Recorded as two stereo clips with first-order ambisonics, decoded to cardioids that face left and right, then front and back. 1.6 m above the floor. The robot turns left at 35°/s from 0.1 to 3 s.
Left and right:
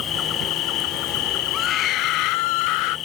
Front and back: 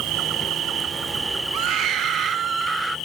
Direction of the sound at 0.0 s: 145° left.